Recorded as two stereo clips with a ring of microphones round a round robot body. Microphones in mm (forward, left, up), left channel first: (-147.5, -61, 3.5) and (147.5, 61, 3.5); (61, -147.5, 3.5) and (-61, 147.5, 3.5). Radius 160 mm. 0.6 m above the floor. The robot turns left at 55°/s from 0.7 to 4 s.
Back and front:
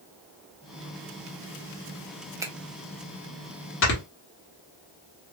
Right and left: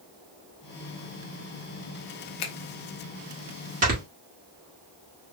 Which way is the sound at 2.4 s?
55° right.